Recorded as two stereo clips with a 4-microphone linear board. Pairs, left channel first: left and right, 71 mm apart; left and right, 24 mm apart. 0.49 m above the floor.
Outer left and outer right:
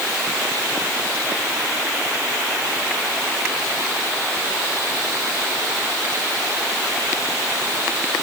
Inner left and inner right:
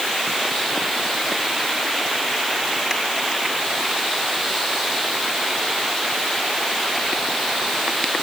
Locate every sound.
Only background noise.